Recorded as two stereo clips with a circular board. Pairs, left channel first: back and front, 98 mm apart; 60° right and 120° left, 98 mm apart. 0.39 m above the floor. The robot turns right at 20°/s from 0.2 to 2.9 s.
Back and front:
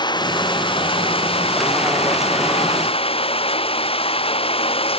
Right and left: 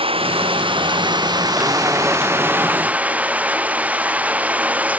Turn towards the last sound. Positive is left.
turn(degrees=-165)